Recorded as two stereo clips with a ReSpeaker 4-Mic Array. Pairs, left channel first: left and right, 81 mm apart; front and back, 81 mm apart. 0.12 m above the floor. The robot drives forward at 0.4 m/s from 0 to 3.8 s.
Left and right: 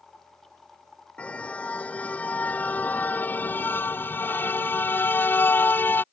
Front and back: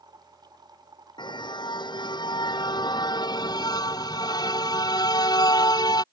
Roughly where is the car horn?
Ahead.